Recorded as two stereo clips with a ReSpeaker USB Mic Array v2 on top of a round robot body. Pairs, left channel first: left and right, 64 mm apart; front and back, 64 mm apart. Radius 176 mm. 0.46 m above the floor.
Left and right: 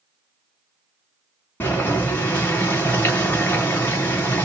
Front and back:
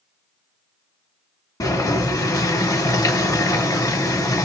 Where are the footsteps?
No footsteps in this recording.